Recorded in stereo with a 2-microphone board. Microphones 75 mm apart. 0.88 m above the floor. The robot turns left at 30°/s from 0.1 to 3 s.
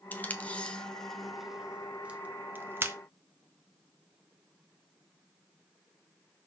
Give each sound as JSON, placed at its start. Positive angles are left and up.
{"t": 0.1, "sound": "tape being pulled", "side_deg": 25, "distance_m": 0.9}